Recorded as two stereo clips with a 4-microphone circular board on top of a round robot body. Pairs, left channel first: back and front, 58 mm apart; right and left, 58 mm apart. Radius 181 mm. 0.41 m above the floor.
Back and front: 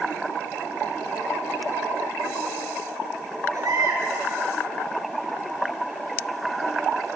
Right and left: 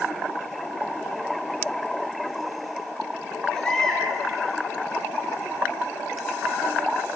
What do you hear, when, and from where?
3.5 s a baby crying: 10° right, 7.5 m